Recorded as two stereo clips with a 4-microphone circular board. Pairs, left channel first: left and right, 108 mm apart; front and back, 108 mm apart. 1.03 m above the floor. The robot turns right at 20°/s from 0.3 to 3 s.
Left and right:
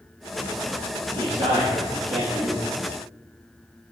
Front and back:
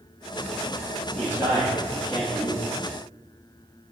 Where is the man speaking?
115° right, 1.4 m; by 2.6 s 85° right, 1.4 m.